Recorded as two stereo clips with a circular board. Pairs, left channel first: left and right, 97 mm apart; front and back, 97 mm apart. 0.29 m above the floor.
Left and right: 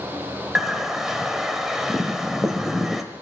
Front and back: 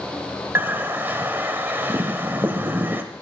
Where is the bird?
170° right, 1.2 m.